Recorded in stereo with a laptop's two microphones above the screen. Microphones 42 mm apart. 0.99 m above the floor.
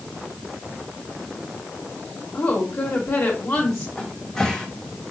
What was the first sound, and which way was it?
A woman speaking, 60° left (ahead or behind).